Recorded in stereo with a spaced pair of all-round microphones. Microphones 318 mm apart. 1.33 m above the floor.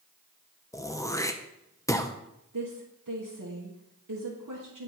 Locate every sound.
0.7 s throat clearing: 10° left (ahead or behind), 0.5 m
2.5 s a woman speaking: 70° right (ahead or behind), 1.3 m